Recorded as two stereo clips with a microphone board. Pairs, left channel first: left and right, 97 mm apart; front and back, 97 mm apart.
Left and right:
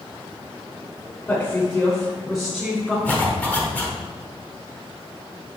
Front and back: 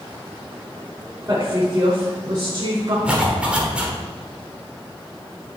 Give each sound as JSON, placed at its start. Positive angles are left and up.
{"t": 1.3, "sound": "a woman speaking", "azimuth_deg": 150, "distance_m": 1.3}
{"t": 3.0, "sound": "a zipper", "azimuth_deg": 125, "distance_m": 1.4}